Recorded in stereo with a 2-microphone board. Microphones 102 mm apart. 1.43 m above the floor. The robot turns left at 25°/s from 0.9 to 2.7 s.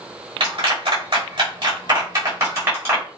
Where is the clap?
70° right (ahead or behind), 3 m; by 3.0 s 25° right (ahead or behind), 3 m.